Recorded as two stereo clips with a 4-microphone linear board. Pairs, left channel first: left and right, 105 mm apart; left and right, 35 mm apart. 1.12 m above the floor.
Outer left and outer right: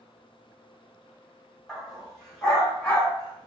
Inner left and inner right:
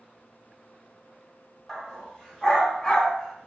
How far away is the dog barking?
About 1.6 m.